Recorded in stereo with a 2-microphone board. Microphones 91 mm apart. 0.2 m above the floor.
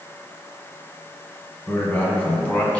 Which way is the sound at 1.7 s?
25° left (ahead or behind).